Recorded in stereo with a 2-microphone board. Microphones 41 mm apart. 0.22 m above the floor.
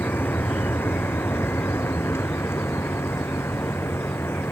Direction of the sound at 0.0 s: 60° left (ahead or behind).